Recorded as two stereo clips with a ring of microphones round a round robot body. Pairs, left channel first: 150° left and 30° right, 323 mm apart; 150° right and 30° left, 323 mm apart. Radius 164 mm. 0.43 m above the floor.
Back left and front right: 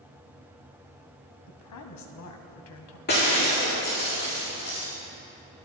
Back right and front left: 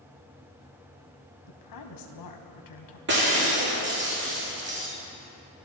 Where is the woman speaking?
175° right, 3.5 m.